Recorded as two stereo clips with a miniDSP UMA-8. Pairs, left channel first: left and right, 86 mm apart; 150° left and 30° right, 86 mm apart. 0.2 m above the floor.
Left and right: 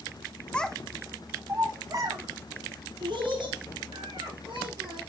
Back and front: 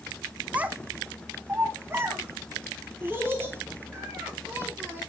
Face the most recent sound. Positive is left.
turn(degrees=-95)